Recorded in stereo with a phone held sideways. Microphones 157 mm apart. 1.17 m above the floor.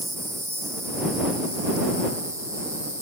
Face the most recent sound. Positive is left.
turn(degrees=-20)  # may be behind; listen again after turning